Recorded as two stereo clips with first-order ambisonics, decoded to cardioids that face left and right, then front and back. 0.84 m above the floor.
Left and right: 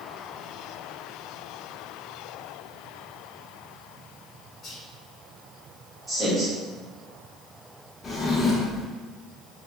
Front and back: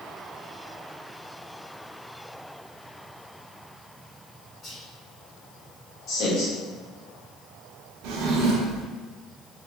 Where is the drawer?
160° left, 0.6 m.